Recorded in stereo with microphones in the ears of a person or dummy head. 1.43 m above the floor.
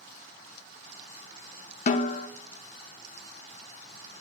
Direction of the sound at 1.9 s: 45° left (ahead or behind).